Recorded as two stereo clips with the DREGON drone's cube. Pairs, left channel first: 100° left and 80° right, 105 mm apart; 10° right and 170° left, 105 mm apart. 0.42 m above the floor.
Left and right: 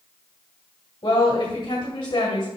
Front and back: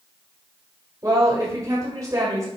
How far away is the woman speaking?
About 1.7 m.